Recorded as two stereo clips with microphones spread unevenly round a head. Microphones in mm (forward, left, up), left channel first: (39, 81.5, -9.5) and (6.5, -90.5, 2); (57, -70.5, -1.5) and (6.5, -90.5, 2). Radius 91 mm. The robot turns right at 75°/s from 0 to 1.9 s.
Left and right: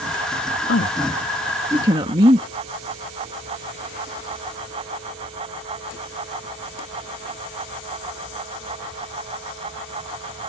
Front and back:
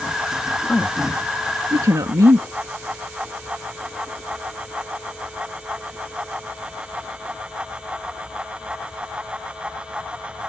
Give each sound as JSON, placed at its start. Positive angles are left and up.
{"t": 0.7, "sound": "a woman speaking", "azimuth_deg": 105}